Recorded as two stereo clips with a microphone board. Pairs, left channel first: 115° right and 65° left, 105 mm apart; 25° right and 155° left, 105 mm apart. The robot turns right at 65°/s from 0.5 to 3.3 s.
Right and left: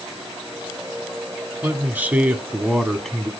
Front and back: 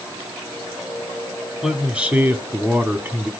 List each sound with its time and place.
1.6 s a man speaking: 75° left, 1.0 m; by 3.3 s 175° right, 1.0 m